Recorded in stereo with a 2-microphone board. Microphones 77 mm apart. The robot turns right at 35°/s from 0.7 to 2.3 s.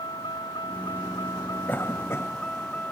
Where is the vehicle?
105° left; by 2.9 s 160° left.